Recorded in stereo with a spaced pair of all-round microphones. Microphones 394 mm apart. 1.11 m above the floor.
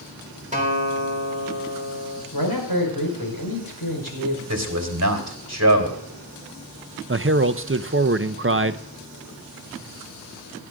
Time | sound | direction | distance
0.5 | a guitar | 20° right (ahead or behind) | 3.5 m
2.3 | a man speaking | 65° left (ahead or behind) | 5 m
4.5 | a man speaking | 40° right (ahead or behind) | 3 m
7.1 | a man speaking | 35° right (ahead or behind) | 0.6 m